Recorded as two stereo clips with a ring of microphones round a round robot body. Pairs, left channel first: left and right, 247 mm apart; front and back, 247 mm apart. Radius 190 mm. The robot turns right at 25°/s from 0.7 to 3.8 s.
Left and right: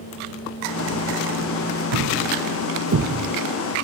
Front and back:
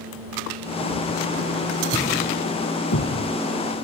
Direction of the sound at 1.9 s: 80° right.